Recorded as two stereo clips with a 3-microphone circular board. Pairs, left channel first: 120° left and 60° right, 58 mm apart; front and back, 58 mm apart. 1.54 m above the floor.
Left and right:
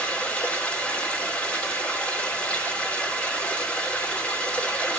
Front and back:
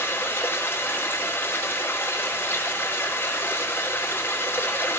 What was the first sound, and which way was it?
Running water, 55° left.